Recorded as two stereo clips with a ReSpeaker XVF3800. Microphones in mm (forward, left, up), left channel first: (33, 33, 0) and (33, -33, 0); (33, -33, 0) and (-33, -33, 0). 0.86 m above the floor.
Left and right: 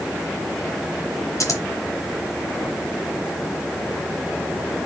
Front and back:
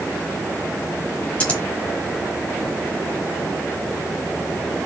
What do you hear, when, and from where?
1.4 s scissors: 65° left, 1.2 m